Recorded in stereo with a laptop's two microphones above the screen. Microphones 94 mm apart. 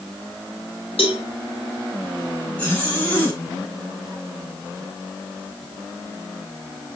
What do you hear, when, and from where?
1.0 s a cowbell: 80° left, 2 m
2.6 s a zipper: 20° left (ahead or behind), 5 m